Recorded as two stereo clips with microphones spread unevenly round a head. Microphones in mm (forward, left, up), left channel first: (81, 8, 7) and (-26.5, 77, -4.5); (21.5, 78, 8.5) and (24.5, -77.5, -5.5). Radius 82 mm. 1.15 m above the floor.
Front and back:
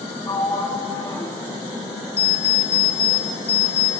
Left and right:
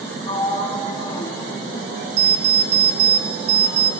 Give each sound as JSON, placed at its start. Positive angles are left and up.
{"t": 0.3, "sound": "a sliding door", "azimuth_deg": 30, "distance_m": 3.0}
{"t": 2.2, "sound": "an alarm clock", "azimuth_deg": -60, "distance_m": 2.5}